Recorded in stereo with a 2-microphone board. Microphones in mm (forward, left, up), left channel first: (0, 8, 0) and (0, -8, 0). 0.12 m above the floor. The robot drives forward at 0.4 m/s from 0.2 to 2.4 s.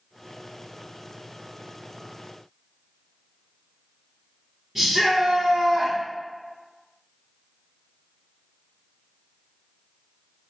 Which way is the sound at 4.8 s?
20° right (ahead or behind).